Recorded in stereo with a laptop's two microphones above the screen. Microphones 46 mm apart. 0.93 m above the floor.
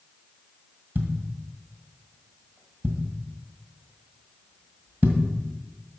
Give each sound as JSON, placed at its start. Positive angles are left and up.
{"t": 0.9, "sound": "a thud", "side_deg": -50, "distance_m": 1.6}